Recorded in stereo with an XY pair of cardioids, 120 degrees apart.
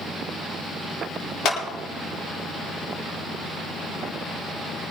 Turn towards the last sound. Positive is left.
turn(degrees=60)